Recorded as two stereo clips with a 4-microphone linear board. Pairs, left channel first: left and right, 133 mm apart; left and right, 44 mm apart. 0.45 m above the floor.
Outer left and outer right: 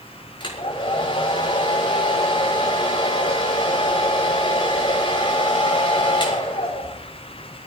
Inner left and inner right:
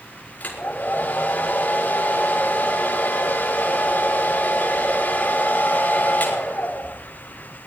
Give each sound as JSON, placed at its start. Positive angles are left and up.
{"t": 0.4, "sound": "a hair dryer", "side_deg": 40, "distance_m": 5.5}